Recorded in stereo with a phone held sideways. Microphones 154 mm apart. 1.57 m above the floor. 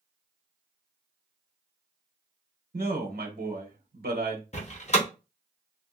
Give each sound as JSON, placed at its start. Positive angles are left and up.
{"t": 2.7, "sound": "a man speaking", "side_deg": -80, "distance_m": 1.1}
{"t": 4.5, "sound": "a door slam", "side_deg": 45, "distance_m": 0.7}